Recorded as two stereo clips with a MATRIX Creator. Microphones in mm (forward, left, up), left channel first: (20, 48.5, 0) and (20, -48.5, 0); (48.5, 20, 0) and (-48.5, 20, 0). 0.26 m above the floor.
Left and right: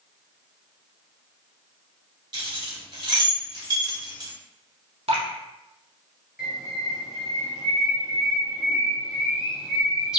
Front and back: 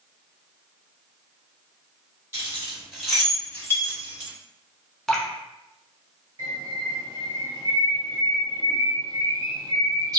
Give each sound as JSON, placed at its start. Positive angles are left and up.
{"t": 2.3, "sound": "keys jangling", "azimuth_deg": -120, "distance_m": 1.4}
{"t": 5.1, "sound": "dripping", "azimuth_deg": -85, "distance_m": 0.8}
{"t": 6.4, "sound": "a bird", "azimuth_deg": -170, "distance_m": 1.0}